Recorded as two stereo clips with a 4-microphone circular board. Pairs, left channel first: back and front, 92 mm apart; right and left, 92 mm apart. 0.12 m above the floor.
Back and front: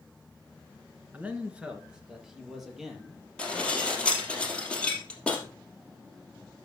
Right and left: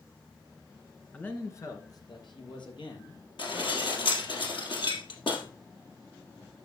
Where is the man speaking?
40° right, 1.5 m; by 4.4 s 90° right, 5.5 m.